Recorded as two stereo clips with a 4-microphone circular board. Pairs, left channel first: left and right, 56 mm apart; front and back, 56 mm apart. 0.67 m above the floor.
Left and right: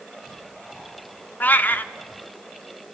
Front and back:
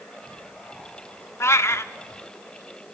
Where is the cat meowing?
35° left, 0.5 m.